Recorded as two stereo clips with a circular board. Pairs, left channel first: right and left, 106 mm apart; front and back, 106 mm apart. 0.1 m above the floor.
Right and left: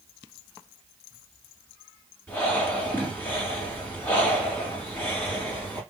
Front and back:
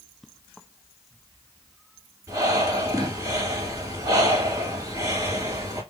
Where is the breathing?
155° right, 2 m.